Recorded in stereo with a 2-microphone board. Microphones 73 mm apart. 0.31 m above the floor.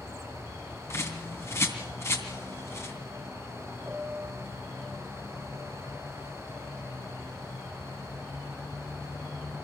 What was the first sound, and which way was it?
A bird, 40° left (ahead or behind).